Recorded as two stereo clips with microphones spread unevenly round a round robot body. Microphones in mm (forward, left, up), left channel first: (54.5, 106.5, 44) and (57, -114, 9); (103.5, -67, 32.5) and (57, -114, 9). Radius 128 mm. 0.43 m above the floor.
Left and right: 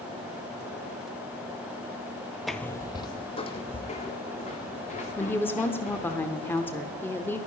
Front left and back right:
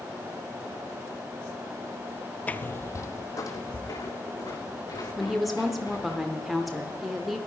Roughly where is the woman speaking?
Behind.